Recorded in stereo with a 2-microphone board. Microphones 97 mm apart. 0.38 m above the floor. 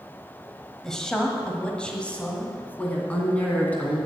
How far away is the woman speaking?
About 1.5 m.